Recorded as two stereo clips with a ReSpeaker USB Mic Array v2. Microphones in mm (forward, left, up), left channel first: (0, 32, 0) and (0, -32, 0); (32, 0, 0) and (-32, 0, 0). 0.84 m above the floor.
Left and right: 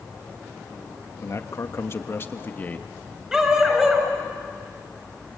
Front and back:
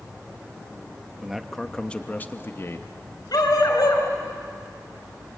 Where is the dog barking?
10° right, 5 m.